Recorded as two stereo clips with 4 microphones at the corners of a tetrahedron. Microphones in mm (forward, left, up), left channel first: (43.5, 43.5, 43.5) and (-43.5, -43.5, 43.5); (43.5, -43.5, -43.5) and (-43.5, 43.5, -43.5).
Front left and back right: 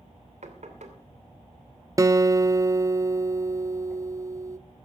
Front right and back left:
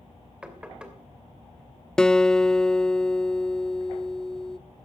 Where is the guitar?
120° right, 0.5 m.